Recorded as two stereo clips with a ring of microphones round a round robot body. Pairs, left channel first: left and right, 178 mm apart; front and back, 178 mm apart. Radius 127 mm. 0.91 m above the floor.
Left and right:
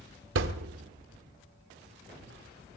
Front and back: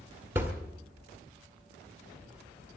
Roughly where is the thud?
Right.